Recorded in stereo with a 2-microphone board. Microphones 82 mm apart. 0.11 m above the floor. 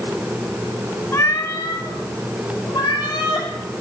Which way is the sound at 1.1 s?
35° left (ahead or behind).